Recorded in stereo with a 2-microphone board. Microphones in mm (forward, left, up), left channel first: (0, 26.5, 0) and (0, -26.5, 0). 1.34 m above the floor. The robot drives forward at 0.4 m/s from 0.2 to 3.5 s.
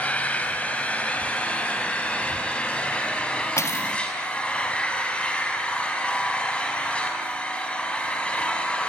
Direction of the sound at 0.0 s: 30° left (ahead or behind).